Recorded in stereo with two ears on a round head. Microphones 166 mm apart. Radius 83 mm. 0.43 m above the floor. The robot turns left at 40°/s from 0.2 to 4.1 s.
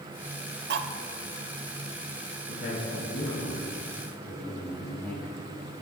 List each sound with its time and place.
0.7 s cutlery clinking: 60° right (ahead or behind), 0.9 m; by 0.9 s 65° right (ahead or behind), 0.9 m
2.5 s a man speaking: 75° left, 2.5 m; by 5.5 s 15° left, 2.5 m